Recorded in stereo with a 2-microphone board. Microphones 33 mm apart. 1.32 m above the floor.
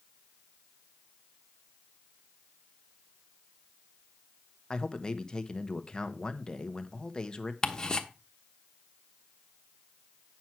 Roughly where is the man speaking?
Left.